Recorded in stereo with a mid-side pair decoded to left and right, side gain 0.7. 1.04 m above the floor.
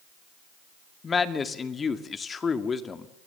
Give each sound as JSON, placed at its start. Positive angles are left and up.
{"t": 1.0, "sound": "a man speaking", "azimuth_deg": 25, "distance_m": 2.0}